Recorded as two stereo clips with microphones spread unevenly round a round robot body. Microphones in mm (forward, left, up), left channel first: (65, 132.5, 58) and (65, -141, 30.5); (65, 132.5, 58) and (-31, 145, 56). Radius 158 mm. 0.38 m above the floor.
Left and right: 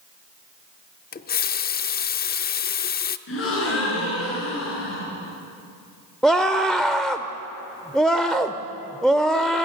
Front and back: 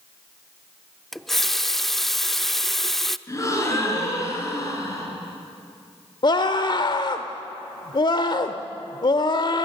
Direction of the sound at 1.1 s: 80° left.